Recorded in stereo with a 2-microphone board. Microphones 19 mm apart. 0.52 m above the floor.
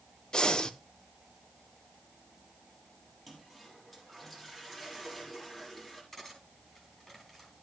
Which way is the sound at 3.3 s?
15° left (ahead or behind).